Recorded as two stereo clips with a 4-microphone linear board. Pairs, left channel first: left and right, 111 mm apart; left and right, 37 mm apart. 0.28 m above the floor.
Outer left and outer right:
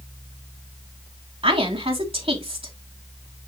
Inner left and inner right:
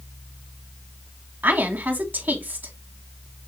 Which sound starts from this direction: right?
A woman speaking, at 1.4 s.